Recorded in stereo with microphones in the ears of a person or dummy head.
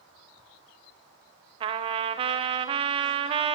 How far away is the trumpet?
About 1.1 m.